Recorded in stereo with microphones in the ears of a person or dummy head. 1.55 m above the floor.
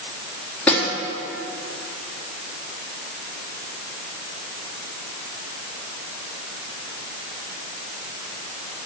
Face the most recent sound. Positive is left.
turn(degrees=10)  # may be behind; listen again after turning